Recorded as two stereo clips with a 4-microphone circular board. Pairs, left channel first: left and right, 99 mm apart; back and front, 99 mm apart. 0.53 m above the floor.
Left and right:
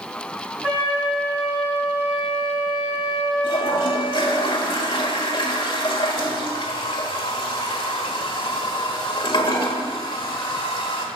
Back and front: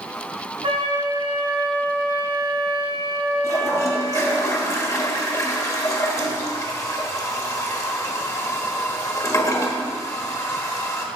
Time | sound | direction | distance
0.6 | a flute | 15° right | 3.5 m
3.4 | a toilet flushing | 125° left | 1.3 m